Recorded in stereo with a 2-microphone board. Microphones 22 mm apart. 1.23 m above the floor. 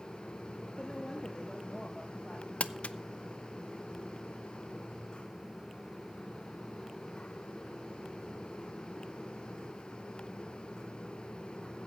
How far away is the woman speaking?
About 1.8 m.